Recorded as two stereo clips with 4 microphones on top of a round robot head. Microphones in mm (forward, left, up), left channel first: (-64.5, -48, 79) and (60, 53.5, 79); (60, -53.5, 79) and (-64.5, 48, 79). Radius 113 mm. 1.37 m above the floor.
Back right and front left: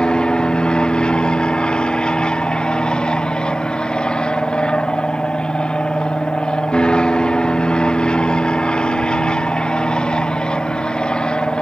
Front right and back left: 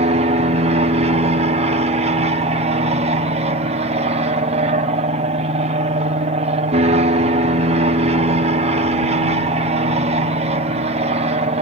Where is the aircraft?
135° left.